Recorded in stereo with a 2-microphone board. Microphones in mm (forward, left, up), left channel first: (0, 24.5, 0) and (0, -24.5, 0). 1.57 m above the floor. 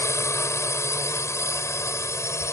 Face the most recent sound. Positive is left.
turn(degrees=80)